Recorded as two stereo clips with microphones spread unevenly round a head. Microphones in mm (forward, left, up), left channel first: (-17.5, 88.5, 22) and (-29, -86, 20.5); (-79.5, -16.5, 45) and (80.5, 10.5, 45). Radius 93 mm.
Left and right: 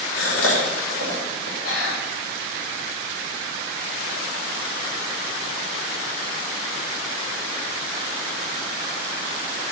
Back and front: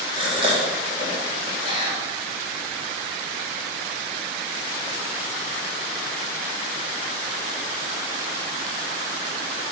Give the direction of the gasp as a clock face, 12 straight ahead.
10 o'clock.